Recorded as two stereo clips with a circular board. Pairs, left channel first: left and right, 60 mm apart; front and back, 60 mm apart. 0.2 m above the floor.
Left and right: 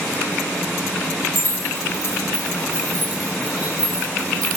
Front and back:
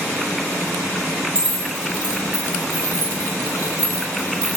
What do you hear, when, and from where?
1.4 s keys jangling: 105° right, 2.0 m; by 4.6 s straight behind, 1.4 m